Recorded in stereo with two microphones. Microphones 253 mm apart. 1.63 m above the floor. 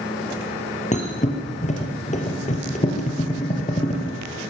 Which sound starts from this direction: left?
A thud, at 0.9 s.